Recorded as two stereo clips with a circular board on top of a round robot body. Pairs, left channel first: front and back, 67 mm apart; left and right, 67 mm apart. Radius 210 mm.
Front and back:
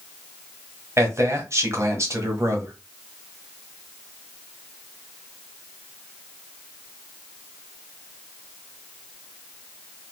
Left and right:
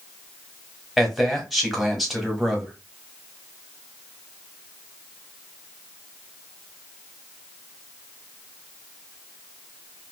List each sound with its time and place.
1.0 s a man speaking: straight behind, 1.6 m